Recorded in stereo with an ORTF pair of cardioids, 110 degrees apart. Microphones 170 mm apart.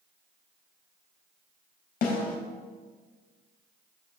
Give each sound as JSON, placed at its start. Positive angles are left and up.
{"t": 2.0, "sound": "a snare drum", "azimuth_deg": 60, "distance_m": 3.5}